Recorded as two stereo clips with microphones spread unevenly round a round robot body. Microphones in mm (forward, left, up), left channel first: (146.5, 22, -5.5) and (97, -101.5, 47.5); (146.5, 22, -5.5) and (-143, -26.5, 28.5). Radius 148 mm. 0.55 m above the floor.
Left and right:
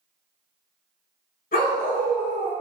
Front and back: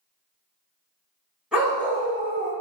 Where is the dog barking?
105° left, 1.2 m; by 2.5 s 135° left, 1.2 m.